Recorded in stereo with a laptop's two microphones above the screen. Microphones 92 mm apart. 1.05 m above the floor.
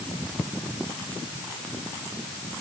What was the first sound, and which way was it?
Only background noise.